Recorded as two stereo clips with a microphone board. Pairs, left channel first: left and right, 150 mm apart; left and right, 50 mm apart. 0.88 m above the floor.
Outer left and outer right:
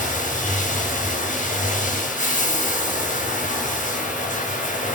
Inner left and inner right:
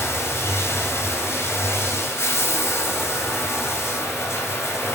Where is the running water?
60° left (ahead or behind), 3.5 m.